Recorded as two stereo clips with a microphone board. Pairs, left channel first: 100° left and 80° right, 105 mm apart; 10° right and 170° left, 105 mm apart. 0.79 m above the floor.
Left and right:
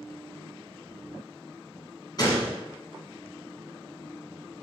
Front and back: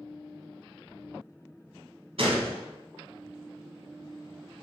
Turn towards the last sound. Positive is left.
turn(degrees=150)